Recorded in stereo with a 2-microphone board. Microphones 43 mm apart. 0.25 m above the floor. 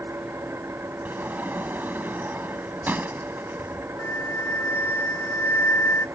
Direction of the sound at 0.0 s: 80° right.